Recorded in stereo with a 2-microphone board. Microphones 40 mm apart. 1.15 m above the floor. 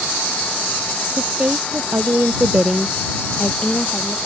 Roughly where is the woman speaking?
Right.